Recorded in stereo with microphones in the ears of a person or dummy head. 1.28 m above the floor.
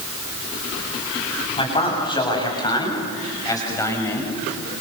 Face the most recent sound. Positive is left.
turn(degrees=10)  # may be behind; listen again after turning